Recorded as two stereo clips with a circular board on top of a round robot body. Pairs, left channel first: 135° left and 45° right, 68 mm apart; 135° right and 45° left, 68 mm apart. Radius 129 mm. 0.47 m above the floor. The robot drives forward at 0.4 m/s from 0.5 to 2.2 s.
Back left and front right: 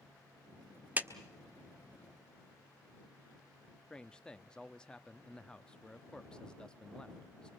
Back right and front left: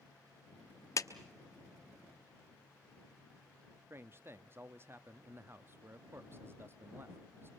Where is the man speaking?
65° left, 0.9 m.